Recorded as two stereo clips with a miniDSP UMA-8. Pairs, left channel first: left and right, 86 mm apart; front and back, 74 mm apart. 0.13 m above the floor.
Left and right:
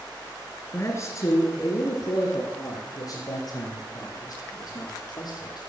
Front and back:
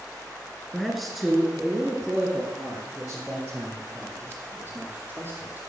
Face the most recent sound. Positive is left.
turn(degrees=115)